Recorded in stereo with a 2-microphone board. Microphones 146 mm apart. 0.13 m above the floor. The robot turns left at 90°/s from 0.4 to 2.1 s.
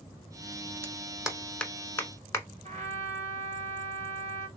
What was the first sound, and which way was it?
A clap, 15° right (ahead or behind).